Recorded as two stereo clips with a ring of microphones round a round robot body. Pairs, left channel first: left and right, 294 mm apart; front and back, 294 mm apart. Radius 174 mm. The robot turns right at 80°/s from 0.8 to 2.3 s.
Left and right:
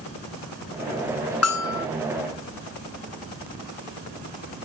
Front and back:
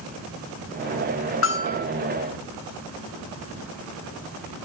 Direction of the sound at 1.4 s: 50° left.